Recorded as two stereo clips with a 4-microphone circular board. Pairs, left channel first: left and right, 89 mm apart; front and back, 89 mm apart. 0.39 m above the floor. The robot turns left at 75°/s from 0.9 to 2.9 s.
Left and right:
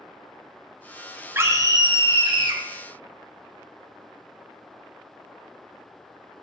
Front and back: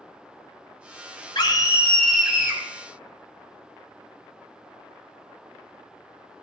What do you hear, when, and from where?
1.4 s a scream: 30° right, 3.5 m; by 2.6 s 125° right, 3.5 m